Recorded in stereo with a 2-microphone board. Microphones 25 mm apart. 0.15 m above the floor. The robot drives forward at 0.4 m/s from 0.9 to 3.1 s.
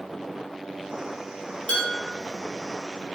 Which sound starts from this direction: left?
Dishes clattering, at 1.7 s.